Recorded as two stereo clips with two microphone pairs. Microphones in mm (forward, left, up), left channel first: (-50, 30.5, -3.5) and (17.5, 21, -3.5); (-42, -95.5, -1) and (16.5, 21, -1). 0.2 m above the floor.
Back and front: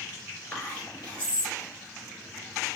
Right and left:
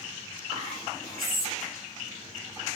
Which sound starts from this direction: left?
Whispering, at 0.5 s.